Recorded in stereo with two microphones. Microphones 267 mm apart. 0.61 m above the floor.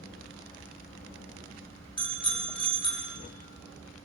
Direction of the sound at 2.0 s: 20° left (ahead or behind).